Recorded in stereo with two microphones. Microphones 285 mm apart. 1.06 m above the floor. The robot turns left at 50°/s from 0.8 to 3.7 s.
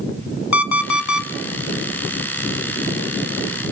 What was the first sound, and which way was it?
An alarm clock, 75° left (ahead or behind).